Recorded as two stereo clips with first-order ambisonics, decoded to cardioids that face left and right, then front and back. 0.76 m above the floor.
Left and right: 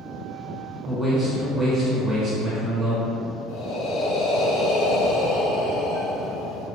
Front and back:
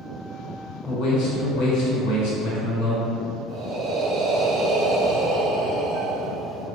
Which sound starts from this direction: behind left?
Breathing, at 3.5 s.